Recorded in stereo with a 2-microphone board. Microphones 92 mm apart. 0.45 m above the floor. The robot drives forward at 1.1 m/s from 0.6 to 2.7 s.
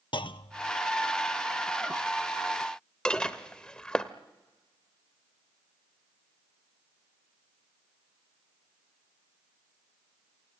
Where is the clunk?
60° left (ahead or behind), 0.5 m; by 0.7 s 65° left (ahead or behind), 0.5 m.